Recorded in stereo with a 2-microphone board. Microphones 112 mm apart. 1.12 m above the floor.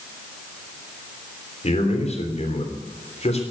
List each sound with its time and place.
1.6 s a man speaking: 75° left (ahead or behind), 3.5 m